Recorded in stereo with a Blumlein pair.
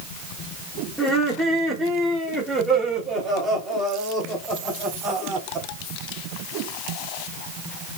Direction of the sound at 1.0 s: 5° right.